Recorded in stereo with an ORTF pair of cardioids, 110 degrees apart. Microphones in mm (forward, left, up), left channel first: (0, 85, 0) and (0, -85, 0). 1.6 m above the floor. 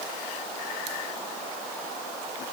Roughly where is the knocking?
No knocking in this recording.